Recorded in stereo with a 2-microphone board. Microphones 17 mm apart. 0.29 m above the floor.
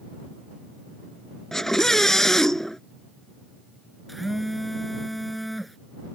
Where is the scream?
25° left (ahead or behind).